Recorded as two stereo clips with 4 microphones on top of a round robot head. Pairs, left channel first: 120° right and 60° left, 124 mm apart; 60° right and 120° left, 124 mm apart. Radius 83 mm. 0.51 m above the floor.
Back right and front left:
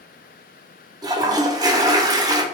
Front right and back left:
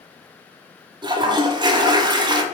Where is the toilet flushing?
95° left, 0.6 m.